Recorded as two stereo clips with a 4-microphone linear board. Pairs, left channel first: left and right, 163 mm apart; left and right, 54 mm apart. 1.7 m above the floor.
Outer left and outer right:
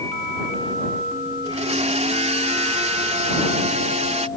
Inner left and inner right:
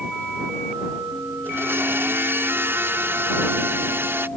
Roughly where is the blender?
Right.